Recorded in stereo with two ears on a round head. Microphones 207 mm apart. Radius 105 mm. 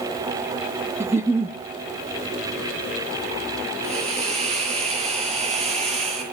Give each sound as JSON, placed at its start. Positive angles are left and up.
{"t": 1.0, "sound": "a giggle", "side_deg": -10, "distance_m": 0.7}
{"t": 3.8, "sound": "a hiss", "side_deg": -25, "distance_m": 9.5}